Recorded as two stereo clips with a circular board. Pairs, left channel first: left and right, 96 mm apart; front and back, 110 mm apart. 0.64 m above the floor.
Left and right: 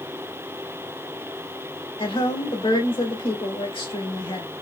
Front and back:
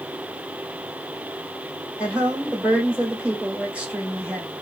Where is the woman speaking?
100° left, 3 m.